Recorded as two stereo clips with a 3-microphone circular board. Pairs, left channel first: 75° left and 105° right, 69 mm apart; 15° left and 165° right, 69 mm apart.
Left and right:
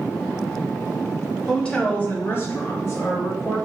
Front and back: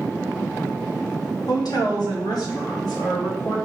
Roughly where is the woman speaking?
Ahead.